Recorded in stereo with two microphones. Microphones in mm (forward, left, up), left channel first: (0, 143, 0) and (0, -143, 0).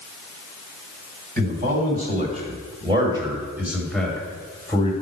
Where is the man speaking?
30° right (ahead or behind), 1.9 m; by 4.9 s 15° left (ahead or behind), 1.5 m.